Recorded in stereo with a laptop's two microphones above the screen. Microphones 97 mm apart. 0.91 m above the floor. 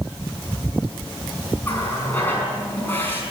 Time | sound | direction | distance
1.6 | a running tap | 20° left (ahead or behind) | 5.5 m